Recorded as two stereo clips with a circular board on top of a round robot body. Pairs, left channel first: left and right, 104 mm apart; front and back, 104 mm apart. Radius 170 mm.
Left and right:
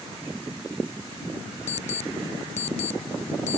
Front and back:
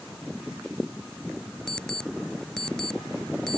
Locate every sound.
1.7 s an alarm clock: 85° left